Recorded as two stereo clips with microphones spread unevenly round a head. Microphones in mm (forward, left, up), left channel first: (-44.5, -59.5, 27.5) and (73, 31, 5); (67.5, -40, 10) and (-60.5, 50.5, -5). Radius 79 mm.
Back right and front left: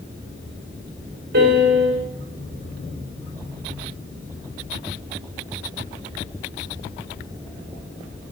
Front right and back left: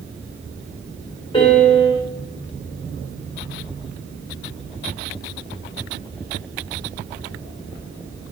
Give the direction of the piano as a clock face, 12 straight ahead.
11 o'clock.